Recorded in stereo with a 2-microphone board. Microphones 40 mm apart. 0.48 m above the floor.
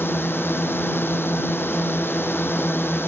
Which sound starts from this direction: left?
A drone, at 0.0 s.